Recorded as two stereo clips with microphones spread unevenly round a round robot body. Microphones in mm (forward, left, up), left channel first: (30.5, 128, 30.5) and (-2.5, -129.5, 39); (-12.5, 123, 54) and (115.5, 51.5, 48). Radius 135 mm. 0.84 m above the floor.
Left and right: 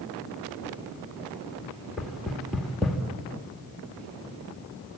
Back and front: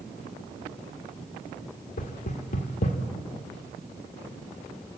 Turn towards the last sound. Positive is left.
turn(degrees=170)